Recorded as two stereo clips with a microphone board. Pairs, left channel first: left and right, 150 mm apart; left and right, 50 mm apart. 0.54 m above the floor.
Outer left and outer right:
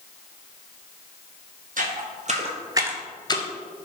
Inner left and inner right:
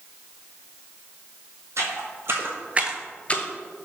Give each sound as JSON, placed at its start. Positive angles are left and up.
{"t": 1.8, "sound": "footsteps", "side_deg": -65, "distance_m": 1.3}